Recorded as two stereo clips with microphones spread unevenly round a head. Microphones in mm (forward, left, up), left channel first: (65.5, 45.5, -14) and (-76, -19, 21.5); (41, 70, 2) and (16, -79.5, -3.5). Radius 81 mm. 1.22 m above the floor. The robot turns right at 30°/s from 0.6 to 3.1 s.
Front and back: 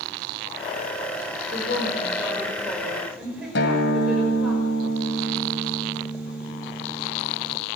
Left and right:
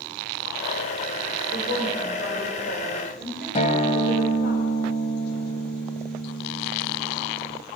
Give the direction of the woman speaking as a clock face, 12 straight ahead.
10 o'clock.